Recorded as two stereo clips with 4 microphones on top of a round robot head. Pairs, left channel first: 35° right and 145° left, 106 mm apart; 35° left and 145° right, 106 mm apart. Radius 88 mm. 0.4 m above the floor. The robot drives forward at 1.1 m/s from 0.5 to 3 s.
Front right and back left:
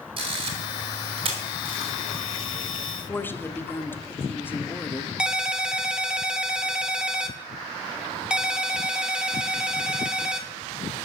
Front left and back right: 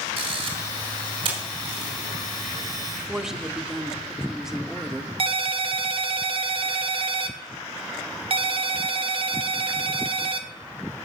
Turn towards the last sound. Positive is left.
turn(degrees=-135)